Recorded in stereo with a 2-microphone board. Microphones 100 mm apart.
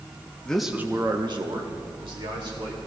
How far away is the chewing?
I don't hear chewing.